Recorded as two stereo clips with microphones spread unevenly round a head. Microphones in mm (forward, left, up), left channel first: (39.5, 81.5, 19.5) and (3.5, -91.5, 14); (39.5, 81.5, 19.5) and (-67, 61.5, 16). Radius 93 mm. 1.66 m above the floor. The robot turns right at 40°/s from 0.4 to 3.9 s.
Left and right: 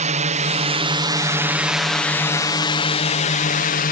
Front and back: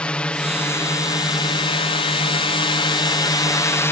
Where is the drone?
70° right; by 3.9 s 70° left.